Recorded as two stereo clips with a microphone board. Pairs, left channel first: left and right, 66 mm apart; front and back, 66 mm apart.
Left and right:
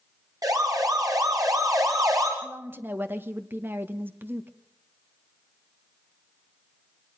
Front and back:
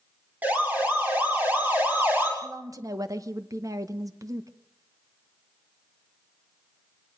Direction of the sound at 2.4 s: 150° right.